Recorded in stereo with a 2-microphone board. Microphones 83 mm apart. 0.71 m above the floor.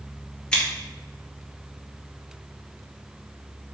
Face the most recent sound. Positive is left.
turn(degrees=15)  # may be behind; listen again after turning